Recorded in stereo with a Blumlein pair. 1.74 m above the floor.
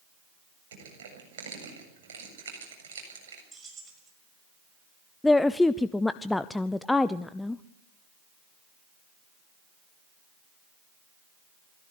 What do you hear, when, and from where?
0.7 s crushing: 60° right, 7.5 m
3.5 s keys jangling: 15° right, 6 m
5.2 s a woman speaking: 5° left, 0.6 m